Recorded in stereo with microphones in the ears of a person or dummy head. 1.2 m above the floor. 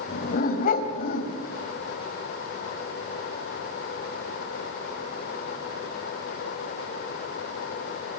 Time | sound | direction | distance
0.1 | a dog barking | 45° left (ahead or behind) | 3 m